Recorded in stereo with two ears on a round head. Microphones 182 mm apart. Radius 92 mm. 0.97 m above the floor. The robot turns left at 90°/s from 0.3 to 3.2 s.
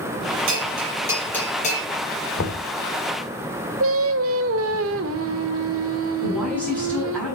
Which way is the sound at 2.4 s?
90° left.